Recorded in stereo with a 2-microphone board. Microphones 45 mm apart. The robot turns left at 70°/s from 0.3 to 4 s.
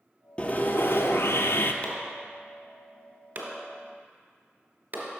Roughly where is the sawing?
Behind left.